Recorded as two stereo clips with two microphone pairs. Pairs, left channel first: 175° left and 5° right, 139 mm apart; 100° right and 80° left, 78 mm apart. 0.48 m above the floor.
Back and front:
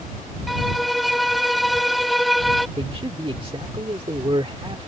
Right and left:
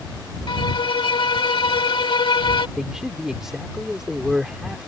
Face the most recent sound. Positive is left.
turn(degrees=0)